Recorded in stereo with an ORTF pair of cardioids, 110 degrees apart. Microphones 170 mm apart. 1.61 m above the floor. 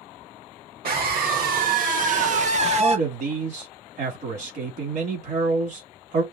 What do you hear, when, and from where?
0.8 s a scream: 65° right, 2.5 m; by 3.0 s 35° right, 1.5 m
2.8 s a man speaking: 55° right, 3 m